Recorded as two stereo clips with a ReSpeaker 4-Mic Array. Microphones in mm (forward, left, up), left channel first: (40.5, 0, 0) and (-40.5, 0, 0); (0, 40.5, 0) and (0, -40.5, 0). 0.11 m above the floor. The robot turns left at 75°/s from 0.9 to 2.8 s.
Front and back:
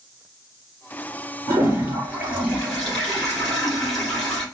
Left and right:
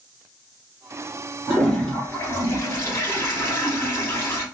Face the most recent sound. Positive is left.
turn(degrees=80)